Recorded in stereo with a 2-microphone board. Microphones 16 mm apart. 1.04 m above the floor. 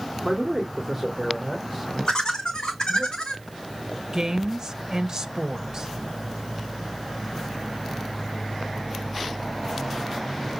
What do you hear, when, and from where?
0.2 s a man speaking: 10° right (ahead or behind), 2 m; by 3.1 s 5° right (ahead or behind), 4 m
2.1 s laughter: 50° left (ahead or behind), 1.7 m
4.1 s a woman speaking: 35° right (ahead or behind), 1.4 m